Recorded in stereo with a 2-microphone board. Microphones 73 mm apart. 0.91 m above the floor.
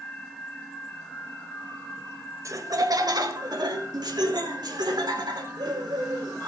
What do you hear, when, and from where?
2.5 s laughter: 45° right (ahead or behind), 1.2 m; by 6.5 s 80° right, 5 m